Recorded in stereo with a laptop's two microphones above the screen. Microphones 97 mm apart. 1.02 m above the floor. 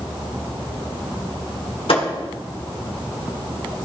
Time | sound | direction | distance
1.9 | a thud | 70° left (ahead or behind) | 1.4 m